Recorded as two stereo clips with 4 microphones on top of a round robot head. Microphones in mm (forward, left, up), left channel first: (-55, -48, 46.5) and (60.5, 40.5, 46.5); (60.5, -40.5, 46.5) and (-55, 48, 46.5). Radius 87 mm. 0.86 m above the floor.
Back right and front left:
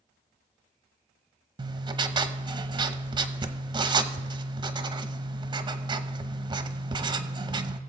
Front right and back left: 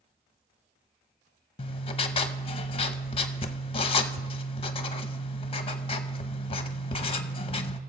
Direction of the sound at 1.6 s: 5° right.